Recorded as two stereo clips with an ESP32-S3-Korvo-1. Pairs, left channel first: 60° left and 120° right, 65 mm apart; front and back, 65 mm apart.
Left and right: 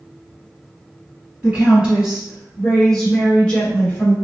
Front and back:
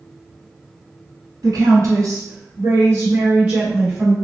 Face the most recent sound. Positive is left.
turn(degrees=95)